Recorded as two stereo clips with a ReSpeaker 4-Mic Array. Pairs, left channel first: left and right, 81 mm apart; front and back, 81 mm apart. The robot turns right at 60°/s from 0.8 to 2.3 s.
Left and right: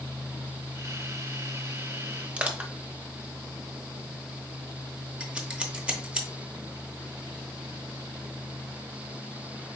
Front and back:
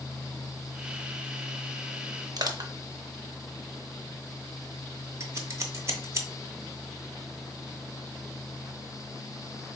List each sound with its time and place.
2.4 s crushing: 160° right, 0.6 m
5.2 s scissors: 160° right, 0.8 m